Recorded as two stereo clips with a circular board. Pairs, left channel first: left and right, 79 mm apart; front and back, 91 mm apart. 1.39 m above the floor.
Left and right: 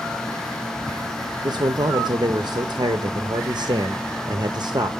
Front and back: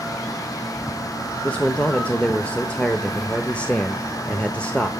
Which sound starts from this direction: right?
A man speaking, at 1.4 s.